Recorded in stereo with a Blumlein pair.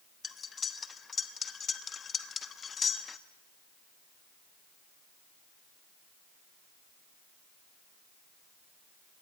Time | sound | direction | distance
0.2 | cutlery clinking | 20° left | 0.9 m